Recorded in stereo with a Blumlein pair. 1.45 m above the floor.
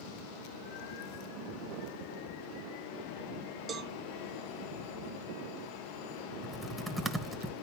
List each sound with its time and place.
3.7 s a cowbell: 20° right, 0.7 m
6.4 s typing on a keyboard: 5° right, 1.3 m